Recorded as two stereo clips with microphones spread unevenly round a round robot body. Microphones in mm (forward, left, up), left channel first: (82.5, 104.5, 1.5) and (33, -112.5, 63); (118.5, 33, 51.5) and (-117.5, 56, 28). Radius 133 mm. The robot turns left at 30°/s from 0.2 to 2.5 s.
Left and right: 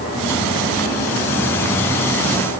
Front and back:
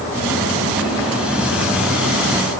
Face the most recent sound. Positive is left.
No sound to turn to.